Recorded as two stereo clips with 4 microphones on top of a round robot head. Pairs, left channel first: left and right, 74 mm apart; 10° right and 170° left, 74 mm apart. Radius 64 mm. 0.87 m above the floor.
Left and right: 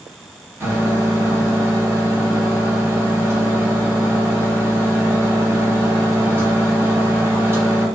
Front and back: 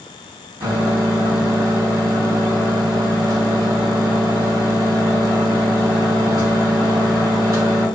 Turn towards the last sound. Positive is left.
turn(degrees=-150)